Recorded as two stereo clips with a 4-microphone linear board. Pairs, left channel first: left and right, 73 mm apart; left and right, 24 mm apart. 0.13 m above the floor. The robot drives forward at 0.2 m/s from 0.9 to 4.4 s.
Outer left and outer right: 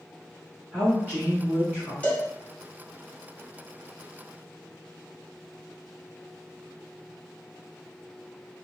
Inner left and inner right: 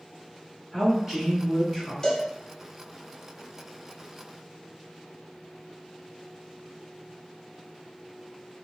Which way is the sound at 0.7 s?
15° right (ahead or behind).